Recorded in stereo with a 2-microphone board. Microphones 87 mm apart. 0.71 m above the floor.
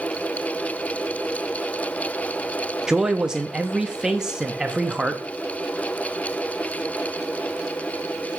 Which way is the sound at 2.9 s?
10° right (ahead or behind).